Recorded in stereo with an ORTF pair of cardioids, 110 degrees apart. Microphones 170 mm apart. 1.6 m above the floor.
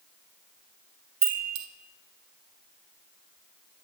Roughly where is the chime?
Ahead right.